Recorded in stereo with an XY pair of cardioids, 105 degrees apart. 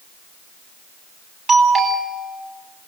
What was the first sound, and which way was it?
A doorbell, 45° right.